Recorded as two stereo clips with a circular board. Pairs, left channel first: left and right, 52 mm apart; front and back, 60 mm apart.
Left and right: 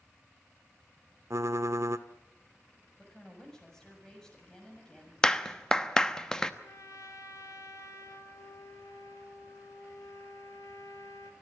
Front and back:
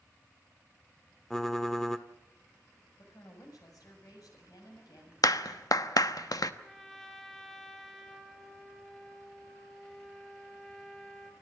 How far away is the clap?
About 0.9 m.